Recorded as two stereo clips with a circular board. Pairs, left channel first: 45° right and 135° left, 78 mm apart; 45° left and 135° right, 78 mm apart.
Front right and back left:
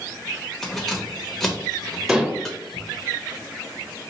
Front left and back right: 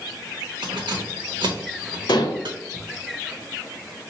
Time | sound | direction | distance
0.6 | keys jangling | 130° right | 1.1 m
2.1 | dishes clattering | 60° left | 0.7 m